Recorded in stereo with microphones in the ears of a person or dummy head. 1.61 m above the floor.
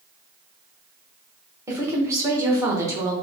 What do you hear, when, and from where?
1.7 s a woman speaking: 10° right (ahead or behind), 1.0 m